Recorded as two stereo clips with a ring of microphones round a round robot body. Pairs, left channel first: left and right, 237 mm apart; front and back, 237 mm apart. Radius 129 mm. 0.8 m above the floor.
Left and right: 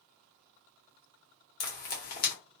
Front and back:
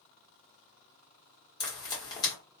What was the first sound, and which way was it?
Frying, 65° left.